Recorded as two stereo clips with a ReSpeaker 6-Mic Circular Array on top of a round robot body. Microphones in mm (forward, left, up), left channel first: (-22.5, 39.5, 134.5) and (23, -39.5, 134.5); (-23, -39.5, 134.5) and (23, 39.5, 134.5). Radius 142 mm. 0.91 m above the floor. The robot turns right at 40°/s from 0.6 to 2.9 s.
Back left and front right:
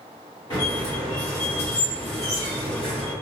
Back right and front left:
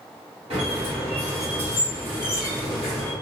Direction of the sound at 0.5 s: 65° left.